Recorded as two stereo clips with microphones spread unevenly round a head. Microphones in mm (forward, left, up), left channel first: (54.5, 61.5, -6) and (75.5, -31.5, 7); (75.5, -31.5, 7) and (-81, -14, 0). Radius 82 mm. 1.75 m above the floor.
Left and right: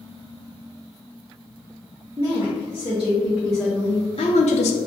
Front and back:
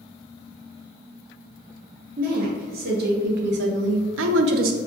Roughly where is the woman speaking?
Behind right.